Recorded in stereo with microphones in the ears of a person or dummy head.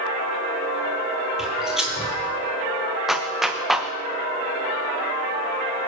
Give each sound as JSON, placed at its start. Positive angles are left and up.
{"t": 1.4, "sound": "footsteps", "side_deg": -5, "distance_m": 2.5}
{"t": 3.1, "sound": "a clap", "side_deg": 0, "distance_m": 0.8}